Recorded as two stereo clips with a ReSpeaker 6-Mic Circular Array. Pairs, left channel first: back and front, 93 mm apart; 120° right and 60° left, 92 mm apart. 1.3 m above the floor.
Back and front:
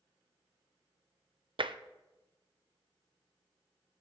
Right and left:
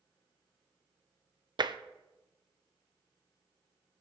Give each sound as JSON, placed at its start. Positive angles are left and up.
{"t": 1.6, "sound": "tapping", "azimuth_deg": 25, "distance_m": 0.5}